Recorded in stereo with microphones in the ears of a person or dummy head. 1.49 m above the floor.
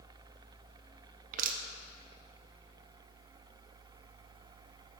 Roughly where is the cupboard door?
No cupboard door in this recording.